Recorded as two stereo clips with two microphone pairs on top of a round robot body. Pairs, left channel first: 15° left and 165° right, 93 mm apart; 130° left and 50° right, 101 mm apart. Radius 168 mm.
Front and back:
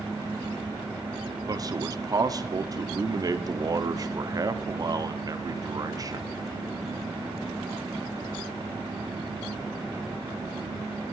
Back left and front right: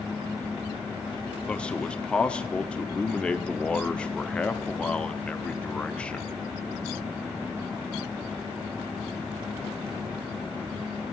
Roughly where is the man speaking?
Behind right.